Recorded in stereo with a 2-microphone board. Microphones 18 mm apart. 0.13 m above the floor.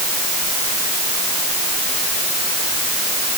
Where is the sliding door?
No sliding door in this recording.